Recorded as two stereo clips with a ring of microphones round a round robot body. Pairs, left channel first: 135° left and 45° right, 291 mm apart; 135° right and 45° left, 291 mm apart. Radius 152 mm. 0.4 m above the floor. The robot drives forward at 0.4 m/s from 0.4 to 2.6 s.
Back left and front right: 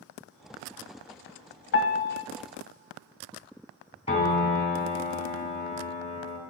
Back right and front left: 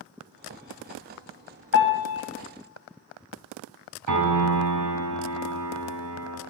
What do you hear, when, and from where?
1.7 s a piano: straight behind, 1.4 m
4.1 s a piano: 65° left, 2.5 m